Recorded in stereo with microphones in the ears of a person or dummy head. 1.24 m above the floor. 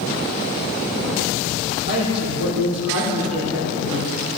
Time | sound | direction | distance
1.9 | a woman speaking | 80° right | 3 m